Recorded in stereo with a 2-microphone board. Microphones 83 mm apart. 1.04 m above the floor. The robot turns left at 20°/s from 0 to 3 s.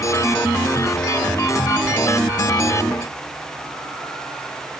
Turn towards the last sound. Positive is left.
No sound to turn to.